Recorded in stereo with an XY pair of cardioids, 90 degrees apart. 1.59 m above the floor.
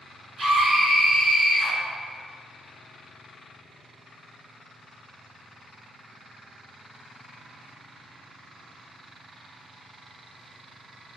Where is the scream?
70° right, 1.5 m.